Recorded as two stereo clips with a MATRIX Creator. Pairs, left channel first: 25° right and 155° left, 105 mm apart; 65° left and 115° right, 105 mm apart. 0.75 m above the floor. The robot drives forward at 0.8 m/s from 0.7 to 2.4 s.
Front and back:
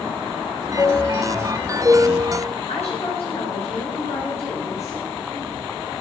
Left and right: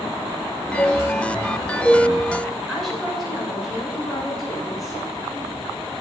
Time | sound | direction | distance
0.8 | a chime | 20° left | 1.0 m
2.7 | a woman speaking | 20° right | 10 m